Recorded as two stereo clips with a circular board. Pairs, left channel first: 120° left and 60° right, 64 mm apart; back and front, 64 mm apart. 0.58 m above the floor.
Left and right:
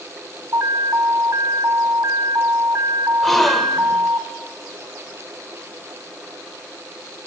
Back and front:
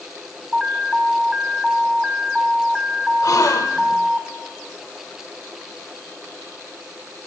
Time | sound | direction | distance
0.5 | an alarm | 80° right | 0.9 m
3.2 | a gasp | 155° right | 0.9 m